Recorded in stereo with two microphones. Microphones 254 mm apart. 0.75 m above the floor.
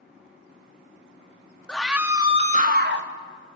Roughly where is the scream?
Centre.